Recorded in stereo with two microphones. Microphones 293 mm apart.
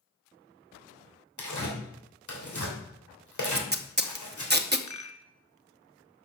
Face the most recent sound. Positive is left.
turn(degrees=70)  # may be behind; listen again after turning